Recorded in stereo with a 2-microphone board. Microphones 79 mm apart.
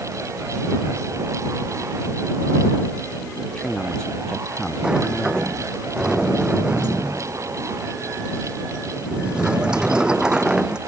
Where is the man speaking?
10° left (ahead or behind).